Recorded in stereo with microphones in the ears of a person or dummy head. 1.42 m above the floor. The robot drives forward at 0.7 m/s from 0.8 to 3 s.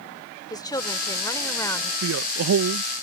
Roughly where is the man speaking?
Right.